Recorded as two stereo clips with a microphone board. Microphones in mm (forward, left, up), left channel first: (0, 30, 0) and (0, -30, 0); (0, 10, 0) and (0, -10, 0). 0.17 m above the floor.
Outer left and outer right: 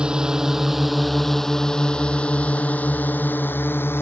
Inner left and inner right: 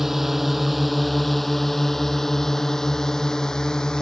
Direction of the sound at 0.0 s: 15° right (ahead or behind).